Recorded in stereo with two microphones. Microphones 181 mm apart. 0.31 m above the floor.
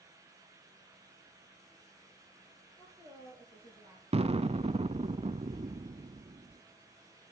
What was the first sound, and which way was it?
A woman speaking, 35° left (ahead or behind).